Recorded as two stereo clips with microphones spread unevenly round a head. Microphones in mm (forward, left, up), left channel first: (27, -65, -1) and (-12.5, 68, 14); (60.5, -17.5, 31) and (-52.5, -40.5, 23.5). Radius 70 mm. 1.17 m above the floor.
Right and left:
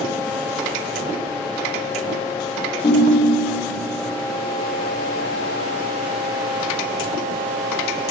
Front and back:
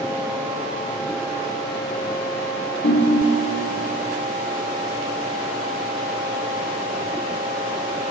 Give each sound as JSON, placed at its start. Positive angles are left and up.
{"t": 2.8, "sound": "a ringtone", "azimuth_deg": -5, "distance_m": 1.2}